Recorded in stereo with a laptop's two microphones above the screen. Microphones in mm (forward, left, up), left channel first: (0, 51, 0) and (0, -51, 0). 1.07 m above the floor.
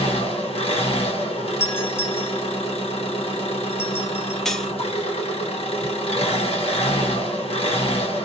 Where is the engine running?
70° left (ahead or behind), 0.7 m.